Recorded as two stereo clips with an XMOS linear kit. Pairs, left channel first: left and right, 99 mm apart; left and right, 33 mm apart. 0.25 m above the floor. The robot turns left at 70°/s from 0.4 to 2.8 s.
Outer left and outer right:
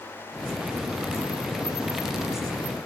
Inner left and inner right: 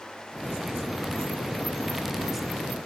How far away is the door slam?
I don't hear a door slam.